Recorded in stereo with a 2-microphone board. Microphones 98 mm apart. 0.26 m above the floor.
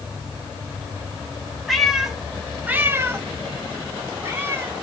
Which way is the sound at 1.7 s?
Centre (ahead or behind).